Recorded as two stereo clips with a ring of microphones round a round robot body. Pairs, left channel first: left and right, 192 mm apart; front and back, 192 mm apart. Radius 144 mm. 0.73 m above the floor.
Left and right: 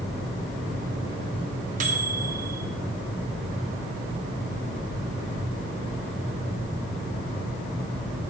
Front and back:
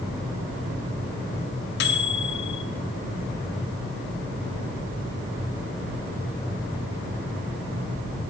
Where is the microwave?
35° right, 0.6 m.